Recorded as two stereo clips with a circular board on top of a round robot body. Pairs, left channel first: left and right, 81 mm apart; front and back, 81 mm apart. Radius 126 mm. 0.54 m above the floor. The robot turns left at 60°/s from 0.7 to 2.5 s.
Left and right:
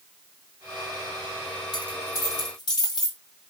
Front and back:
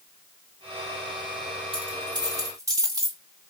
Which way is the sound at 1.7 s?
170° left.